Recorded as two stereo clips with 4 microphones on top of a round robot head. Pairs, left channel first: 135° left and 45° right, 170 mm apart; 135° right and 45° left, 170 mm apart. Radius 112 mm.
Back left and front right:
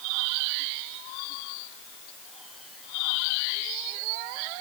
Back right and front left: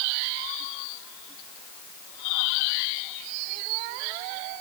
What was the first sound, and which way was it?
Only background noise.